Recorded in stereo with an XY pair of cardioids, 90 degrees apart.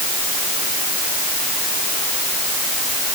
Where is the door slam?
I don't hear a door slam.